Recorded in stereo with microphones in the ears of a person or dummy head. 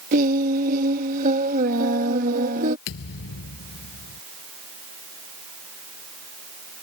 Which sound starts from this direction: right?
Singing, at 0.1 s.